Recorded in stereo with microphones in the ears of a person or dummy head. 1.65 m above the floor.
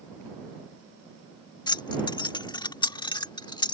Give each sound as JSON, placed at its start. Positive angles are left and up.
{"t": 1.7, "sound": "keys jangling", "side_deg": 25}